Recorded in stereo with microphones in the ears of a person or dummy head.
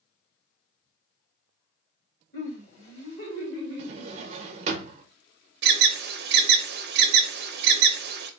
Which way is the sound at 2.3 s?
45° left (ahead or behind).